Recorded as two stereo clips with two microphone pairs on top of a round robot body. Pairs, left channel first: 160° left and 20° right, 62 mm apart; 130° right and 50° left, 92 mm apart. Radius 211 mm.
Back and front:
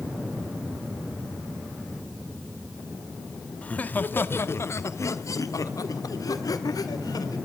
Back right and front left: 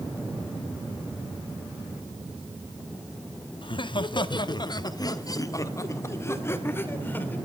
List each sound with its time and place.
3.6 s laughter: 135° right, 1.8 m; by 7.4 s 160° left, 3 m